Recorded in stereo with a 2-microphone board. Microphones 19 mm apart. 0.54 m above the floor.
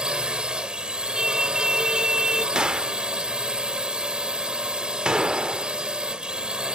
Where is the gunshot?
55° right (ahead or behind).